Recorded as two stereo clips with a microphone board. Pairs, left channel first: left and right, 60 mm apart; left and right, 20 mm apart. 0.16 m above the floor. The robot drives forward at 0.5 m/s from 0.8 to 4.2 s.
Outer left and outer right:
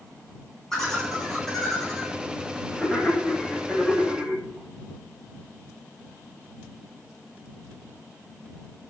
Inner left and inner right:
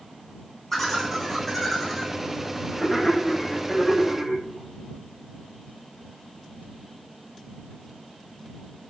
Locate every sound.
0.7 s laughter: 5° left (ahead or behind), 8 m